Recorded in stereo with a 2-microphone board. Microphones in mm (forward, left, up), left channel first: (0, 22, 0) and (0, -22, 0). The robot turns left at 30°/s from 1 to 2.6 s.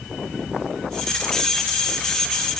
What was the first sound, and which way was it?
Only background noise.